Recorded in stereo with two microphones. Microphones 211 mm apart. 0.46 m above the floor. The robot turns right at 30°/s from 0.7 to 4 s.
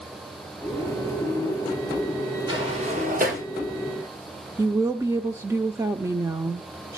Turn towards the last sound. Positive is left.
turn(degrees=-15)  # may be behind; listen again after turning